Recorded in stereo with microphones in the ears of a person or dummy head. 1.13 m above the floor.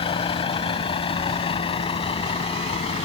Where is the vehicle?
30° left (ahead or behind).